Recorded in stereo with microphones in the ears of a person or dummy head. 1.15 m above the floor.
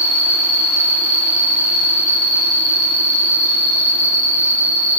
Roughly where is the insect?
Right.